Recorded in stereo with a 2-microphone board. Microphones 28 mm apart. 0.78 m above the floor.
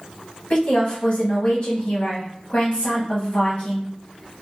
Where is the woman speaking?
45° left (ahead or behind), 1.4 m.